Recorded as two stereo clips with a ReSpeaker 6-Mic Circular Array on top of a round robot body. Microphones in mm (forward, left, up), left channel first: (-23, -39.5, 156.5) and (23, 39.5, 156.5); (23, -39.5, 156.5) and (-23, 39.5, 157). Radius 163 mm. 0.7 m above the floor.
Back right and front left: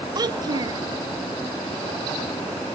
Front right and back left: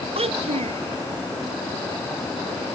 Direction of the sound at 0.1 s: 110° left.